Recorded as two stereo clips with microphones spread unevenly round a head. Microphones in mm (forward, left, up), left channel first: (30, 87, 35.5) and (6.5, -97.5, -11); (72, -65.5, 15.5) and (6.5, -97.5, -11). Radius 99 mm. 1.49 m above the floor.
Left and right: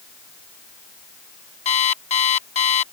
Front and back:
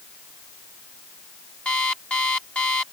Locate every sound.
1.6 s an alarm clock: 75° left